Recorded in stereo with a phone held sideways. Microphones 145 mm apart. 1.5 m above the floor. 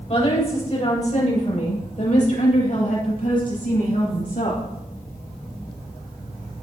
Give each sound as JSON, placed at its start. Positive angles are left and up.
{"t": 0.1, "sound": "a woman speaking", "side_deg": 45, "distance_m": 7.0}